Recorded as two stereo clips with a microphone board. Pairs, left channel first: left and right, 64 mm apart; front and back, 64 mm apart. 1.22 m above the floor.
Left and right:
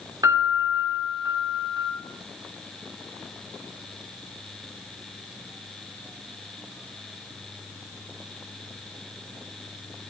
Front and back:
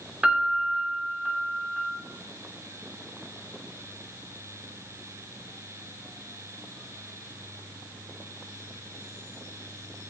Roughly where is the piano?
Right.